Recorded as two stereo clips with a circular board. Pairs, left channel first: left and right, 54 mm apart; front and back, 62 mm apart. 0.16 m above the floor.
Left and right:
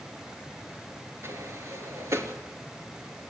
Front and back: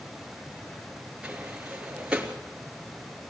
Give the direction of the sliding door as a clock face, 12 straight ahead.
4 o'clock.